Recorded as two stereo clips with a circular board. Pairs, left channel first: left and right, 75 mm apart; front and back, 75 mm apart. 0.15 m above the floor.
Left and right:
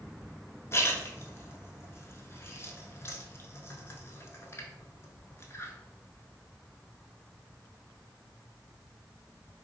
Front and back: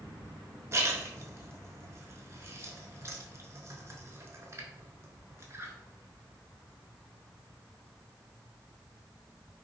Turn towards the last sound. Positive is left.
turn(degrees=135)